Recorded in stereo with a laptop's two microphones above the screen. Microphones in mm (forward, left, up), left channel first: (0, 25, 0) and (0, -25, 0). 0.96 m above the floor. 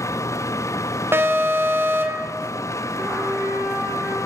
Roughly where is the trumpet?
Right.